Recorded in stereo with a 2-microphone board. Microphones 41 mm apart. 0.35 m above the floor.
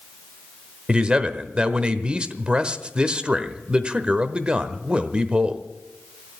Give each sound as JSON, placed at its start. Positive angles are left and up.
{"t": 0.9, "sound": "a man speaking", "side_deg": -25, "distance_m": 1.0}